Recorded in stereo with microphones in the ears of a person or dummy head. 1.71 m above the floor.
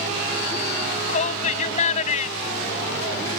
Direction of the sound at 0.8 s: 40° left (ahead or behind).